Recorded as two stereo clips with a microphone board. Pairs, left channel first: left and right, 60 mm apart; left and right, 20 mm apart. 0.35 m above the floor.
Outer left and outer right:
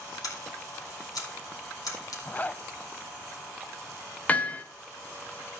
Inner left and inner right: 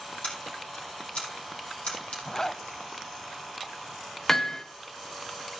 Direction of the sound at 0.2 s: 85° left.